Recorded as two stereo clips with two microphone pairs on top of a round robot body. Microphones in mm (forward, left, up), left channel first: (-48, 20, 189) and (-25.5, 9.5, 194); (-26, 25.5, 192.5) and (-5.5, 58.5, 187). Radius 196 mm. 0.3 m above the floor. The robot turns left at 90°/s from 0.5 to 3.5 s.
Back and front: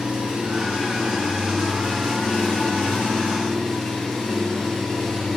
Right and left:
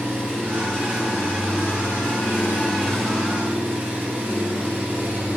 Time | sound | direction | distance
0.0 | an engine running | 15° left | 4.5 m